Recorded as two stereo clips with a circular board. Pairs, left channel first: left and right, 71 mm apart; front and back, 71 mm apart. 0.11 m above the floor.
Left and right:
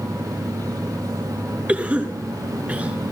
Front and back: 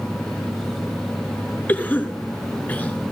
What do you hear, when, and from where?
1.7 s a cough: 40° right, 2.0 m